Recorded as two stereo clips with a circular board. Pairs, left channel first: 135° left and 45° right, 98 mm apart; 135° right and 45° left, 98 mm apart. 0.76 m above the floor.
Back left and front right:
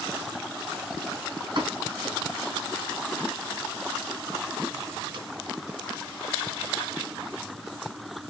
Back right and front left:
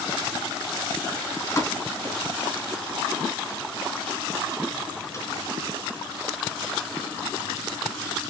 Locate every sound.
1.6 s a pop: 75° right, 4 m